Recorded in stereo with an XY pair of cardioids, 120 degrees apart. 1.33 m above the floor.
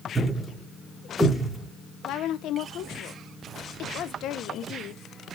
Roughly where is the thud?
Ahead.